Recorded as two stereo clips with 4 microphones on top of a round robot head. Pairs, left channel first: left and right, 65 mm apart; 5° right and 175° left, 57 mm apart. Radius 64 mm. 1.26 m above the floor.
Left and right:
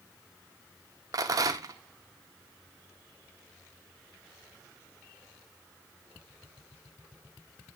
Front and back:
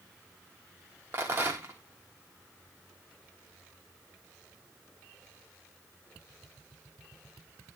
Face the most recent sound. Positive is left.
turn(degrees=-125)